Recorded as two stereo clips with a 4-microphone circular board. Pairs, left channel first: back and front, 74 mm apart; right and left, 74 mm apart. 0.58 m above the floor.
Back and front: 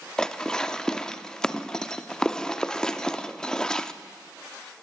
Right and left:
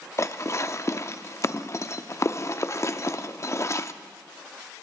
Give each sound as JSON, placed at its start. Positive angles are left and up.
{"t": 0.2, "sound": "dishes clattering", "azimuth_deg": -105, "distance_m": 0.6}